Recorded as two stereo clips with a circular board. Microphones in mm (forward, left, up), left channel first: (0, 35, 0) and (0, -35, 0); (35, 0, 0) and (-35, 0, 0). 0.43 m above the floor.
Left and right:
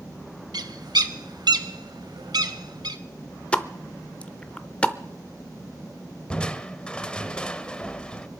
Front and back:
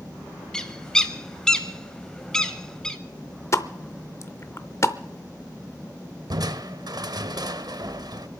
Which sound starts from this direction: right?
A bird, at 0.5 s.